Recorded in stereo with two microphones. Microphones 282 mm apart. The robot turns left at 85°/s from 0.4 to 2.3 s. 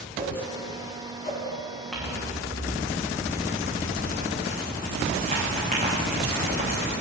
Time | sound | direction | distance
0.2 | a whoosh | 25° right (ahead or behind) | 2 m
1.9 | crumpling | centre (ahead or behind) | 5.5 m